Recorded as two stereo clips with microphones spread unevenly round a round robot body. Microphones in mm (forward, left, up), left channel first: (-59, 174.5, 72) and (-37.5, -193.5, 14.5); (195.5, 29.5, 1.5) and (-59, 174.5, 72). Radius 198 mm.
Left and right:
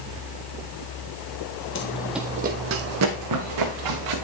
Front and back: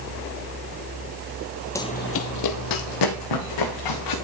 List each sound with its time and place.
1.8 s running footsteps: 60° left, 0.8 m; by 4.2 s 45° right, 3 m